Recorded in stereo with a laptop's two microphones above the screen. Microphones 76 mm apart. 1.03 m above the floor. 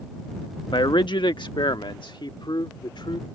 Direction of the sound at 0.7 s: 75° left (ahead or behind).